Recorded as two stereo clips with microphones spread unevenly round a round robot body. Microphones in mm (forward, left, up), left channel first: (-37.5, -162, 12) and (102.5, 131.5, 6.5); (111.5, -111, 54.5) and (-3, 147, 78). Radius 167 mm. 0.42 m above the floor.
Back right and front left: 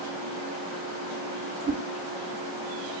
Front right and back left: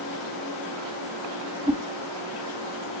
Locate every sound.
1.7 s a whoosh: 50° left, 1.5 m